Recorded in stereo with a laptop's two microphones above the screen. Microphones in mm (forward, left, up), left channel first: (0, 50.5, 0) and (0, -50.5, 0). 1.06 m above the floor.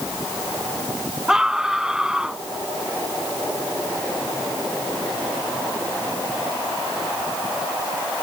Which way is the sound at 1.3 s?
5° right (ahead or behind).